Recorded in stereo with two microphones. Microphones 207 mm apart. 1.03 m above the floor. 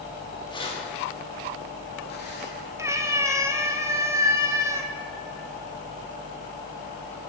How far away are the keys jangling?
About 1.3 m.